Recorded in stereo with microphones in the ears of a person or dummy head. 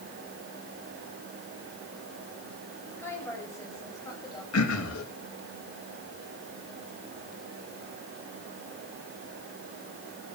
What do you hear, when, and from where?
3.0 s a woman speaking: 10° left (ahead or behind), 8.5 m; by 4.4 s 20° left (ahead or behind), 9.5 m
4.5 s throat clearing: 85° left, 3 m